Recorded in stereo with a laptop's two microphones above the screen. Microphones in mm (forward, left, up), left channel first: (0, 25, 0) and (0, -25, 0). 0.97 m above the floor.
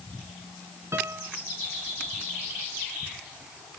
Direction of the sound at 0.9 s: 70° right (ahead or behind).